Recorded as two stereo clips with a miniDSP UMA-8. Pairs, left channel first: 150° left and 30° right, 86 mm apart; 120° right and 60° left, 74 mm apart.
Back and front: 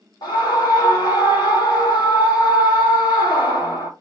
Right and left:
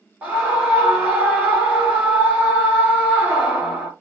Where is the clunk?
No clunk in this recording.